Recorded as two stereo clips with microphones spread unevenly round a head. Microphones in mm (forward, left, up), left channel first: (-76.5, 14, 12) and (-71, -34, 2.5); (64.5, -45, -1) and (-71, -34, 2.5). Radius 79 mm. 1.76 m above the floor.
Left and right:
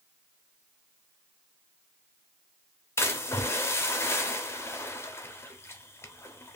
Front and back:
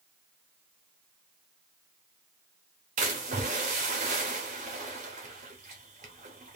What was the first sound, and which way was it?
A splash, 130° left.